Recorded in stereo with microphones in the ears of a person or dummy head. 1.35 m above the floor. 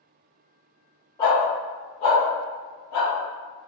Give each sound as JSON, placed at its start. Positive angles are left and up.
{"t": 1.2, "sound": "a dog barking", "side_deg": 20, "distance_m": 1.8}